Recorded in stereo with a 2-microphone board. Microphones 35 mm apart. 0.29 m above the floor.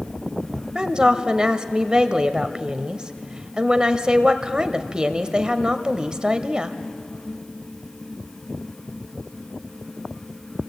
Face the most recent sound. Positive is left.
turn(degrees=-25)  # may be behind; listen again after turning